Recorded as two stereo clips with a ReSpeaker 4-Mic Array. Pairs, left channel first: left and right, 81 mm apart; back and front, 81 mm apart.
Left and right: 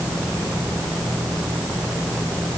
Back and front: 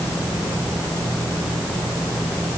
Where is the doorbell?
No doorbell in this recording.